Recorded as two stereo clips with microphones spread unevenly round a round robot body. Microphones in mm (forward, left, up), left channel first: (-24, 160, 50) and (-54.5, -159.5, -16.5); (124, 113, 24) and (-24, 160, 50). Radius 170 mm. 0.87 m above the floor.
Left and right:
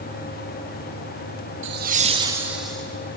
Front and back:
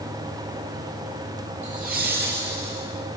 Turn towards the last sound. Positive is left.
turn(degrees=175)